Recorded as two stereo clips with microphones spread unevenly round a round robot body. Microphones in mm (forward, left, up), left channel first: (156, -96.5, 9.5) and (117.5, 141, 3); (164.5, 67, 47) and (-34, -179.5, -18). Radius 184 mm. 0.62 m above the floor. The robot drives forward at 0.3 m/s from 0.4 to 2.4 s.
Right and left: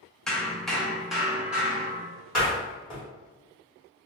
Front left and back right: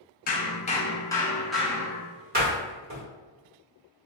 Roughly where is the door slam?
Behind.